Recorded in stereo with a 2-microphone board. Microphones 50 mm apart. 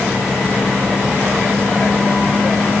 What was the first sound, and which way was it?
Only background noise.